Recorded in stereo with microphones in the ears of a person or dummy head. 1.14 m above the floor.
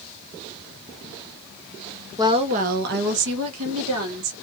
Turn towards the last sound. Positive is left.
turn(degrees=-75)  # may be behind; listen again after turning